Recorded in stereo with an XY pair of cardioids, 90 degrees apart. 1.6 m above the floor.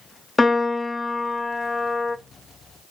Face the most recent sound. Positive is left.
turn(degrees=30)